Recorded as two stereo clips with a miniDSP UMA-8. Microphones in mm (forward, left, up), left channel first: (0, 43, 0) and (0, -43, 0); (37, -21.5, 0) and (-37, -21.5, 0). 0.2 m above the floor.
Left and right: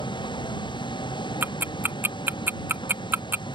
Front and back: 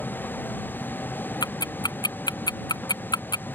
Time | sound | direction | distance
0.0 | a vehicle | 65° left | ?
1.4 | ticking | 25° right | ?